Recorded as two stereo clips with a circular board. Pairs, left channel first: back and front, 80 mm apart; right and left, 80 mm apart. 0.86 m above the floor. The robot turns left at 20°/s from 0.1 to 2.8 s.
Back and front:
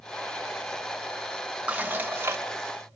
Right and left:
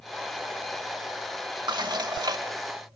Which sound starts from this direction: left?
Dishes clattering, at 1.7 s.